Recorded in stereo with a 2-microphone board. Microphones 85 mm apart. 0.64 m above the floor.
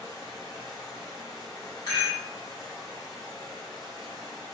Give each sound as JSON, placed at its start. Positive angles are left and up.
{"t": 0.0, "sound": "running water", "side_deg": 55, "distance_m": 1.8}
{"t": 1.9, "sound": "a rattle", "side_deg": 50, "distance_m": 1.1}